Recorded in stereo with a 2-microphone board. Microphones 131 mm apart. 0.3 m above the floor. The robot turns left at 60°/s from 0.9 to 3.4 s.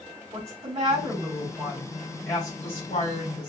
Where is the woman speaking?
120° right, 2.5 m; by 3.5 s 90° left, 2.5 m.